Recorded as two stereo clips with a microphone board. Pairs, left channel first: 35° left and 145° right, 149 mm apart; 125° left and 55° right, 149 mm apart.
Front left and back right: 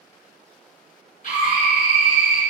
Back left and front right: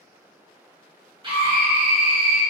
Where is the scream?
5° left, 1.5 m.